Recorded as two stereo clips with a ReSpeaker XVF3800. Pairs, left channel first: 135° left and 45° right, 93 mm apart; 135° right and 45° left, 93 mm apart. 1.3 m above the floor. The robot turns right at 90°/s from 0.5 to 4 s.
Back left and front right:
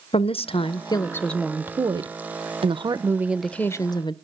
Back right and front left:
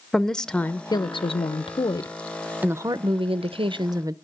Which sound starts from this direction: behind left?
A woman speaking, at 0.1 s.